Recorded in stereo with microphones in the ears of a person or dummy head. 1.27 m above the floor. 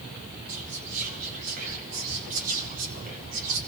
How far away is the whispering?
About 4.5 m.